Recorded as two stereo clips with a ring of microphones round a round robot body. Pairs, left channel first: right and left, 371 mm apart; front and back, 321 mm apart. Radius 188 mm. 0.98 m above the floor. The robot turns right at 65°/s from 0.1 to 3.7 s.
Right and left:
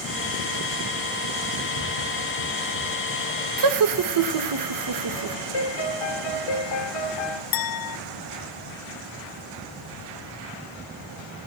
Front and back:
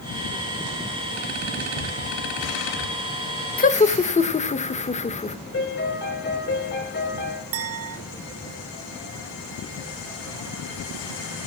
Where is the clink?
125° right, 0.8 m.